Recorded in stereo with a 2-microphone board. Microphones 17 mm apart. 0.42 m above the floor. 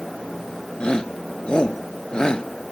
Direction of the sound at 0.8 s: 75° left (ahead or behind).